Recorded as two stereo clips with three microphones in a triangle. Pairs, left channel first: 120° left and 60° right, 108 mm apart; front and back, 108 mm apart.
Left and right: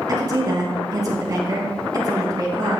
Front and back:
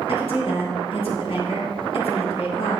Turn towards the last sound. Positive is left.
turn(degrees=-10)